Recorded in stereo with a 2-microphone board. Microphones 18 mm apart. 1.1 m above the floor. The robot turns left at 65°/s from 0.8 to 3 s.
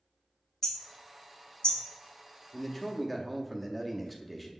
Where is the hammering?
20° left (ahead or behind), 1.1 m; by 1.8 s 70° left (ahead or behind), 1.1 m.